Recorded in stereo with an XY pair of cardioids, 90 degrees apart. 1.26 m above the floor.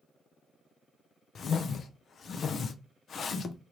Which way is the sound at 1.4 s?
55° left.